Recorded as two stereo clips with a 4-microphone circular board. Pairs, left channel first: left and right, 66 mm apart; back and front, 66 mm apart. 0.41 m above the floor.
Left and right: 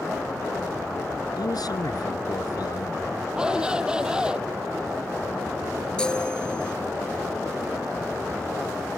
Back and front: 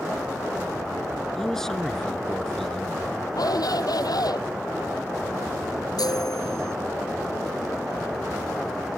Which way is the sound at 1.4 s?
95° left.